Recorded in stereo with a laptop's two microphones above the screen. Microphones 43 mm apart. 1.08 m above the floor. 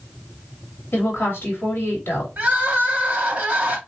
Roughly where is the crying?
Right.